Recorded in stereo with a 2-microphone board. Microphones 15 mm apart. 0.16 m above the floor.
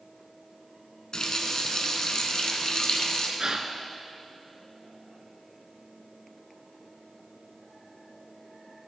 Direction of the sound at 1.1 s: 45° left (ahead or behind).